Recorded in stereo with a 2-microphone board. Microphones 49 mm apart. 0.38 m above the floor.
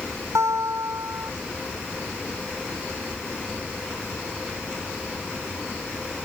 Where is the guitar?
85° right.